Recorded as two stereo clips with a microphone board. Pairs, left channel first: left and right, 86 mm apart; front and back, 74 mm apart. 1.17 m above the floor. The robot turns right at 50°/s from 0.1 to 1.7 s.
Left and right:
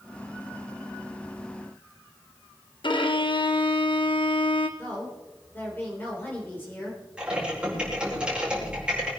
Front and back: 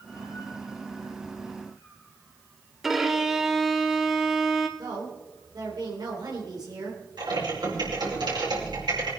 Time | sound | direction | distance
2.8 | a violin | 95° left | 1.2 m
4.8 | a woman speaking | 155° left | 3.5 m
7.2 | typing on a keyboard | 170° right | 5.5 m